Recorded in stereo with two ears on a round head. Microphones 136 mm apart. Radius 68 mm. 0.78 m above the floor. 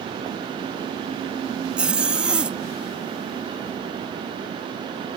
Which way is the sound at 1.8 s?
5° right (ahead or behind).